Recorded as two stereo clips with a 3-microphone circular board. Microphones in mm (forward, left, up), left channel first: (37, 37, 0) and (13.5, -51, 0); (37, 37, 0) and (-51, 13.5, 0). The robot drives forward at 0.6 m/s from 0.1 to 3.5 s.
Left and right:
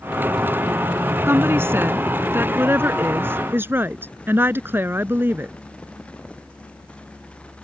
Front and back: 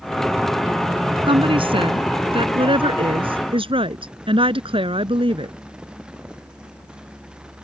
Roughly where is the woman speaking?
Behind.